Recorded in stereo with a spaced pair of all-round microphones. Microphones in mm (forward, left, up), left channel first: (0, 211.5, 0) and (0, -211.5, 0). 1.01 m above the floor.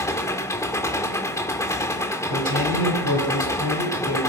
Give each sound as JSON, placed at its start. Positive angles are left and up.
{"t": 0.0, "sound": "an engine running", "side_deg": 5, "distance_m": 1.8}
{"t": 2.3, "sound": "a man speaking", "side_deg": -50, "distance_m": 7.0}